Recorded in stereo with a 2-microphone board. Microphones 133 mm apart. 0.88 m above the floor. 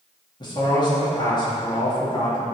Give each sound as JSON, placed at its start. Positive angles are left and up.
{"t": 0.4, "sound": "a man speaking", "side_deg": 30, "distance_m": 1.8}